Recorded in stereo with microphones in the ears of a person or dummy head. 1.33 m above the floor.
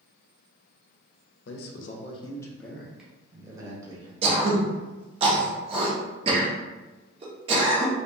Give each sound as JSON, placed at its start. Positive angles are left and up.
{"t": 1.4, "sound": "a man speaking", "side_deg": 60, "distance_m": 0.6}
{"t": 4.2, "sound": "throat clearing", "side_deg": -35, "distance_m": 0.8}